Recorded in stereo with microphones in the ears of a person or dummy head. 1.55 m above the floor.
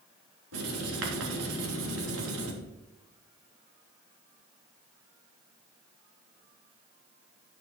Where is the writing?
85° right, 3 m.